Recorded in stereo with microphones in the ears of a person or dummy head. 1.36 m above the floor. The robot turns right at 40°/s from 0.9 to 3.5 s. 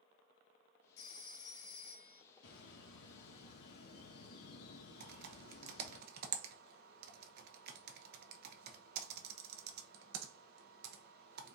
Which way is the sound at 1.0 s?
90° left.